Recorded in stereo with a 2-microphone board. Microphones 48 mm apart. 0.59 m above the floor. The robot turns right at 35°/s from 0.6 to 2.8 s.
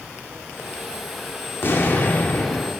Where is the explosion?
110° left, 1.2 m; by 2.7 s 145° left, 1.2 m.